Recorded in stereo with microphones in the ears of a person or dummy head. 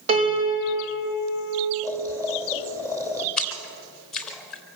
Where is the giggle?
I don't hear a giggle.